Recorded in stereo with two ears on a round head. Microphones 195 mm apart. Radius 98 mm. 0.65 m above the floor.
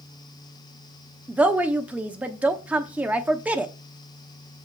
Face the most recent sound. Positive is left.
turn(degrees=-5)  # may be behind; listen again after turning